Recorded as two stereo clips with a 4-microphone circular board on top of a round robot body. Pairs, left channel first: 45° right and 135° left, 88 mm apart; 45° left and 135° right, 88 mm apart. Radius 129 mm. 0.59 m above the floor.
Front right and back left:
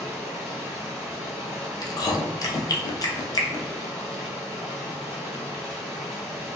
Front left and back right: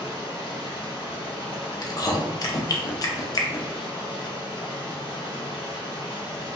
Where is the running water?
50° left, 1.4 m.